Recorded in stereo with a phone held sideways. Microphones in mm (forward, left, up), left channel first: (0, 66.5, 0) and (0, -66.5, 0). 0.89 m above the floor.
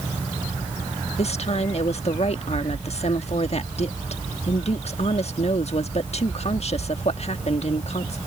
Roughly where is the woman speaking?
Left.